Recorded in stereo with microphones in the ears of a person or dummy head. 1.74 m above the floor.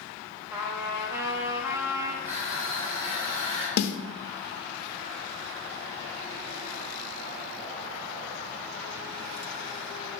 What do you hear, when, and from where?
0.5 s a trumpet: 15° right (ahead or behind), 0.6 m
2.2 s crushing: 50° right (ahead or behind), 0.9 m
3.8 s a snare drum: 65° left (ahead or behind), 0.5 m